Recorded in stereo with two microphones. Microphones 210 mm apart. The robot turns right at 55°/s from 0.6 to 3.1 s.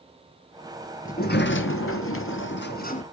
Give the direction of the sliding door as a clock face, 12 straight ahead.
11 o'clock.